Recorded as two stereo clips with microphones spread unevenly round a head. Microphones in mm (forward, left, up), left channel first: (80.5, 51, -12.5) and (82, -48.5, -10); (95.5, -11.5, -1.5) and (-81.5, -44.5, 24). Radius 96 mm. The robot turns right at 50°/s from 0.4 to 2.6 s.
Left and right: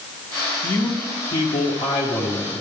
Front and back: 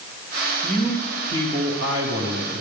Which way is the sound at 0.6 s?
90° left.